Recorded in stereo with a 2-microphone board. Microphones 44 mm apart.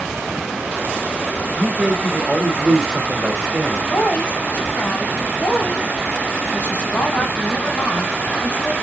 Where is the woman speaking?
50° left (ahead or behind), 2.5 m.